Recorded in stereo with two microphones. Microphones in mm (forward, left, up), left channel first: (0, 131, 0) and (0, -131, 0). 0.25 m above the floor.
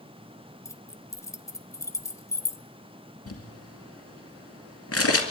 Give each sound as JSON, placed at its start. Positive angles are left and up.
{"t": 0.7, "sound": "keys jangling", "side_deg": 10, "distance_m": 0.6}
{"t": 3.3, "sound": "crumpling", "side_deg": 60, "distance_m": 2.0}